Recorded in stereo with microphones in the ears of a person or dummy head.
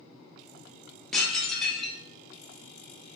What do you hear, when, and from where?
1.1 s dishes clattering: centre (ahead or behind), 0.6 m